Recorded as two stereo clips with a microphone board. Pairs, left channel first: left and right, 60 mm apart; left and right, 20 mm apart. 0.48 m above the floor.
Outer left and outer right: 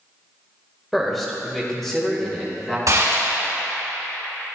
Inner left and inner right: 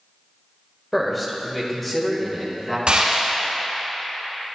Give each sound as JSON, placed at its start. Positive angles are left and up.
{"t": 0.9, "sound": "a man speaking", "side_deg": 0, "distance_m": 1.3}
{"t": 2.9, "sound": "a gunshot", "side_deg": -65, "distance_m": 3.0}